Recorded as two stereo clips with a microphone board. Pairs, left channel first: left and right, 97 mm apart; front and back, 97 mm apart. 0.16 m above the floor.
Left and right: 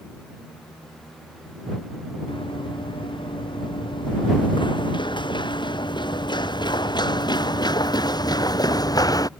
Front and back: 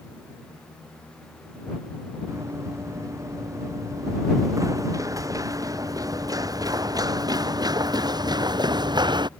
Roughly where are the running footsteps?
Behind left.